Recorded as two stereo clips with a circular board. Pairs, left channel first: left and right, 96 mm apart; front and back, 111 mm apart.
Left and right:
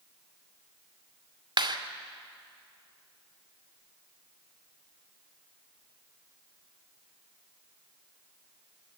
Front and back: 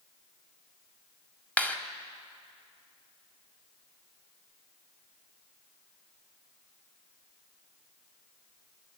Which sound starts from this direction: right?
A clap, at 1.6 s.